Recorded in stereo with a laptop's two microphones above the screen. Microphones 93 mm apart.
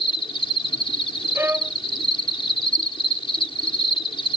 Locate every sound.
0.0 s an insect: 70° left (ahead or behind)
1.4 s a violin: 25° right (ahead or behind)